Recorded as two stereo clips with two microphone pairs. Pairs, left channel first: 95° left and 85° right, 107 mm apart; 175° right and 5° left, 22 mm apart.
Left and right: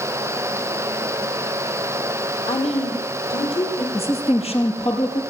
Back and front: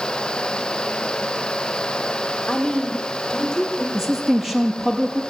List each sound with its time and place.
2.5 s a woman speaking: 115° left, 5.5 m; by 3.8 s 125° left, 7.5 m
3.9 s a woman speaking: 85° left, 4.5 m